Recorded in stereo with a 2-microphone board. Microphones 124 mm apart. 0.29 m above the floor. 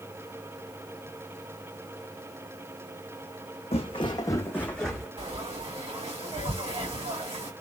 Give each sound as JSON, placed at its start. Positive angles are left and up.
{"t": 3.7, "sound": "footsteps", "side_deg": 50, "distance_m": 0.8}
{"t": 5.2, "sound": "frying", "side_deg": -50, "distance_m": 2.0}